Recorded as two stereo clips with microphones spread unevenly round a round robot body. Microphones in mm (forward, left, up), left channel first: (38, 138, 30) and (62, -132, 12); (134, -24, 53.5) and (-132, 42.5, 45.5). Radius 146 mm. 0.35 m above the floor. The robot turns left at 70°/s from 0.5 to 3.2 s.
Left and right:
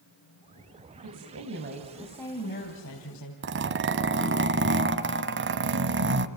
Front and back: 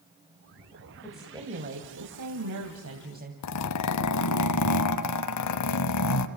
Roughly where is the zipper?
Ahead right.